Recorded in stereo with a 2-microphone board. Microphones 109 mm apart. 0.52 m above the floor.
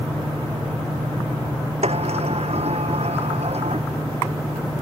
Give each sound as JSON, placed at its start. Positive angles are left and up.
{"t": 1.8, "sound": "a sliding door", "side_deg": -70}